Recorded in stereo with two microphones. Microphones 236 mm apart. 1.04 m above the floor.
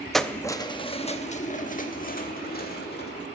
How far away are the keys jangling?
About 0.6 m.